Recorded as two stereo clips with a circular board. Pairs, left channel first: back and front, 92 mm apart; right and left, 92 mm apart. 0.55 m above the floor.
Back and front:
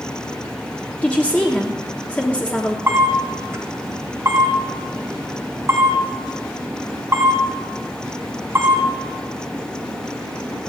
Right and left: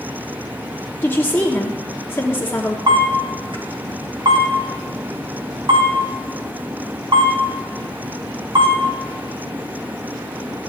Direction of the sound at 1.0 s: 120° right.